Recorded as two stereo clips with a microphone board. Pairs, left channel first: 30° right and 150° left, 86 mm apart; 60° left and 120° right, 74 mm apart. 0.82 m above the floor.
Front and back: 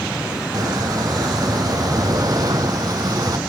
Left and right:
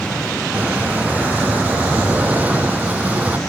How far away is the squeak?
About 1.3 m.